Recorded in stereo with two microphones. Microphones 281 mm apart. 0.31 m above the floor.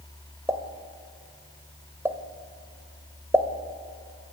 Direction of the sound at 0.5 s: 10° right (ahead or behind).